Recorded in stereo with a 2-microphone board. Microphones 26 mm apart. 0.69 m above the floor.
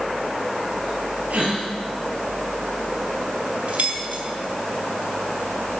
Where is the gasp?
70° right (ahead or behind), 4 m.